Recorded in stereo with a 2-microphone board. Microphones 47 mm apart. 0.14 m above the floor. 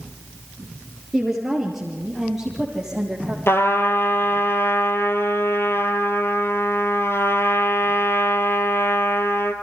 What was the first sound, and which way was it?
A woman speaking, 5° left (ahead or behind).